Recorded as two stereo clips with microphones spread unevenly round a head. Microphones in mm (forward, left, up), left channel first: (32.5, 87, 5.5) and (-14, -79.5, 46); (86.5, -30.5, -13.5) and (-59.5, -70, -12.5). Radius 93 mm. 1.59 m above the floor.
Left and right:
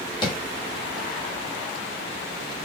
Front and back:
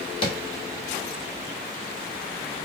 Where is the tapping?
10° left, 1.3 m.